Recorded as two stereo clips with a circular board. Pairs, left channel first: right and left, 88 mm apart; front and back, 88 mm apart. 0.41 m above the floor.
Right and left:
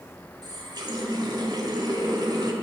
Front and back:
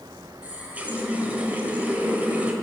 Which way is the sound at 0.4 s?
110° left.